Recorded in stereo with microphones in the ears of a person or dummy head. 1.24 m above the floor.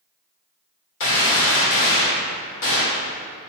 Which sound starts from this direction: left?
A gunshot, at 1.0 s.